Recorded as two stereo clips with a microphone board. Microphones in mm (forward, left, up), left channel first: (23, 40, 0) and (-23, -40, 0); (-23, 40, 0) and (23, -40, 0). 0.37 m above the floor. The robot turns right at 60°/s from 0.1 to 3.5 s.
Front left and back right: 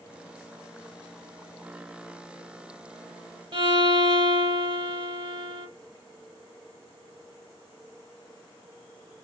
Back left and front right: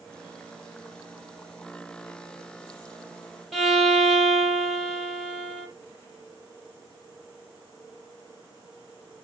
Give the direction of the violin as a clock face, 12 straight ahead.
5 o'clock.